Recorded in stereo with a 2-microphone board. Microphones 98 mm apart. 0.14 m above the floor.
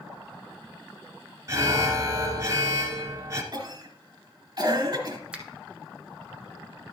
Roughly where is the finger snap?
Centre.